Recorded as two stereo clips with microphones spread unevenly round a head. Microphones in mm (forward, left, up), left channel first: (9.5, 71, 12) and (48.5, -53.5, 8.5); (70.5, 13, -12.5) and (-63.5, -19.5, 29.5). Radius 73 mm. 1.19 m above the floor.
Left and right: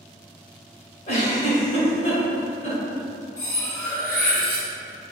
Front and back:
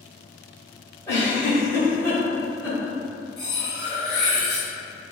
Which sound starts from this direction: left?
A giggle, at 1.1 s.